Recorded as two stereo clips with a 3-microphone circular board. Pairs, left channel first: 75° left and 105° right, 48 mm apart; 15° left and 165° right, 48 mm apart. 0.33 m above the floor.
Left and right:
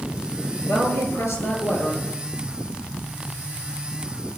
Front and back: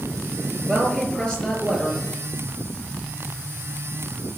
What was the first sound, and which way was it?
A woman speaking, 90° left.